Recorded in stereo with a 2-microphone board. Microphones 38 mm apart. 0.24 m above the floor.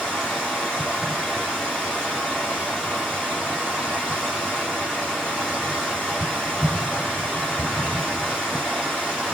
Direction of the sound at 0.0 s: 15° left (ahead or behind).